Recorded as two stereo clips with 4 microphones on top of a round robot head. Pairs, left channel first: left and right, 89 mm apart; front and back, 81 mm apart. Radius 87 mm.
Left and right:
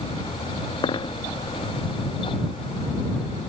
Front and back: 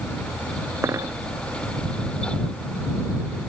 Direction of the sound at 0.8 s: 120° left.